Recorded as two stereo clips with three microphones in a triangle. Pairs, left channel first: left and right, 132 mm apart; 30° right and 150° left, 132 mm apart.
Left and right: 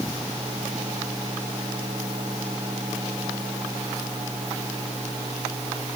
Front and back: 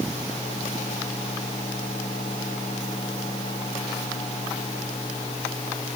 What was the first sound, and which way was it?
Only background noise.